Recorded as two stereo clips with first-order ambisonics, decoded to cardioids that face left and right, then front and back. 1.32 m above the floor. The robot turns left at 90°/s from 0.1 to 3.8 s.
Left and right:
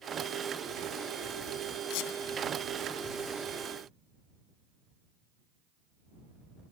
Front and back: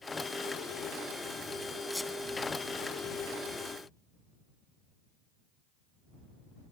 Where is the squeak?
90° left; by 2.1 s 70° left.